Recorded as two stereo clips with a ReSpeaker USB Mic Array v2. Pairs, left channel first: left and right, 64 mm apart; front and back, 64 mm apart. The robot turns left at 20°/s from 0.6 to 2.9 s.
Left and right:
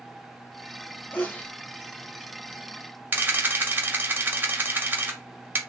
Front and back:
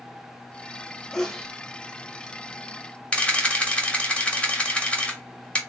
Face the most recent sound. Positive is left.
turn(degrees=-55)